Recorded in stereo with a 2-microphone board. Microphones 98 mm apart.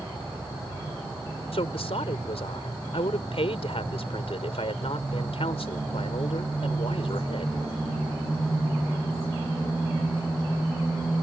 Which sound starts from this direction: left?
A woman speaking, at 1.5 s.